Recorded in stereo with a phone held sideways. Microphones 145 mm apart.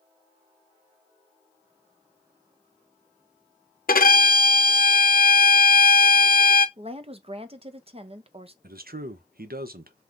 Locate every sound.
3.9 s a violin: 70° left (ahead or behind), 0.5 m
6.8 s a woman speaking: 40° right (ahead or behind), 0.5 m
8.6 s a man speaking: 80° right, 0.5 m